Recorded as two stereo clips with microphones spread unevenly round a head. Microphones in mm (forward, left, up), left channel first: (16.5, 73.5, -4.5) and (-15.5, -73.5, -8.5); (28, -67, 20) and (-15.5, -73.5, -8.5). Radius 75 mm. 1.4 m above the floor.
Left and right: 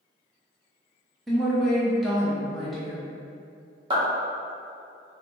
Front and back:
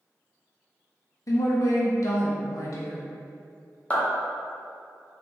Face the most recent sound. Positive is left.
turn(degrees=-40)